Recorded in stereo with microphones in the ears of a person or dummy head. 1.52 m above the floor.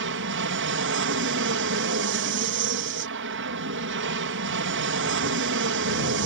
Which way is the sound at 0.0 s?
55° right (ahead or behind).